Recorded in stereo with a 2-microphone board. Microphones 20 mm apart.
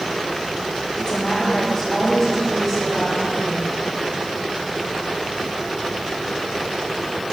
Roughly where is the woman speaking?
Left.